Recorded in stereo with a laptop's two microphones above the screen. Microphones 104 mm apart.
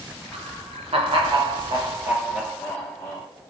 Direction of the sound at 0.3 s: 70° right (ahead or behind).